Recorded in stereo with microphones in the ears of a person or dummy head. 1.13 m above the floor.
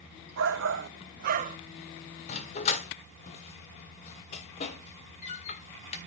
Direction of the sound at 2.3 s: 40° left (ahead or behind).